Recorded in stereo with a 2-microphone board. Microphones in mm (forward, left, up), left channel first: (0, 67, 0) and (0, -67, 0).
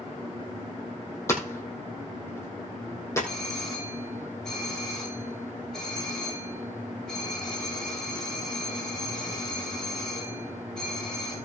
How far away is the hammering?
About 3 m.